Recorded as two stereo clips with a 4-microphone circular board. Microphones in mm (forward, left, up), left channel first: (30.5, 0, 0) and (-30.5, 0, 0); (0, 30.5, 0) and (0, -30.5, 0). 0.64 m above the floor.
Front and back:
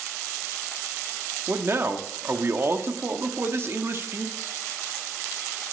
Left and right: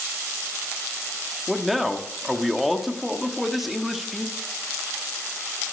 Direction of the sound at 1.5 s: Straight behind.